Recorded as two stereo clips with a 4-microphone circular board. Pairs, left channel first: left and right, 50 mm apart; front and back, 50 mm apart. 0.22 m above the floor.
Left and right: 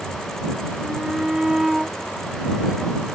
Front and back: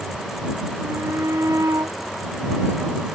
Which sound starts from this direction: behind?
A shout, at 0.8 s.